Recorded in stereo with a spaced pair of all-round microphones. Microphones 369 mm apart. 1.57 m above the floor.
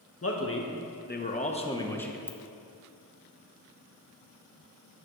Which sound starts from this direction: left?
A man speaking, at 0.2 s.